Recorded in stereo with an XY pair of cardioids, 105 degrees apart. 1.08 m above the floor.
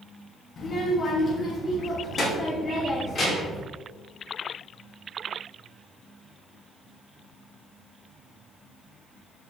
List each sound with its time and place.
0.6 s a child speaking: 40° left, 1.0 m; by 3.6 s 35° left, 3 m